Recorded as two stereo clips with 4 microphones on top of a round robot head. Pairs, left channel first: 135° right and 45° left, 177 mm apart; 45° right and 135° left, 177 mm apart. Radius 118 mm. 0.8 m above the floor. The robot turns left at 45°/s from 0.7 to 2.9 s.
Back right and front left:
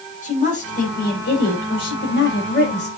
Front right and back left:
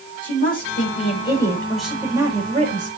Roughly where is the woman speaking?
Right.